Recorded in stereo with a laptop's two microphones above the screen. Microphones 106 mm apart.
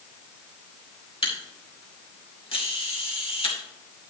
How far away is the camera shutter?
About 2 m.